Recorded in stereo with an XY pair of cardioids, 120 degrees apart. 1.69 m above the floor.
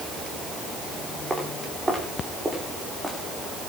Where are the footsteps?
15° right, 9 m.